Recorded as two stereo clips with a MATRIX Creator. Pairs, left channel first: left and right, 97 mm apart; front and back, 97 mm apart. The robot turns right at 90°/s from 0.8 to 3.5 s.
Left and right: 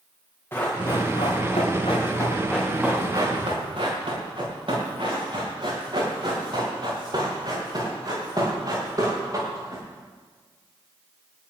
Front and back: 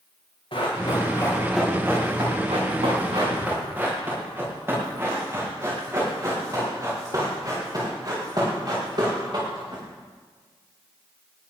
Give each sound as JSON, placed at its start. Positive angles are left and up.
{"t": 0.5, "sound": "running footsteps", "azimuth_deg": 25, "distance_m": 8.0}